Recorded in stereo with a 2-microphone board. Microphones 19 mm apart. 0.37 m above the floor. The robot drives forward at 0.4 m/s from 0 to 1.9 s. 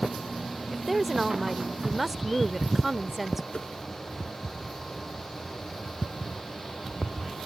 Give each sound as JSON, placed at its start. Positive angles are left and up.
{"t": 0.7, "sound": "a woman speaking", "side_deg": -10}
{"t": 3.5, "sound": "a whoosh", "side_deg": 60}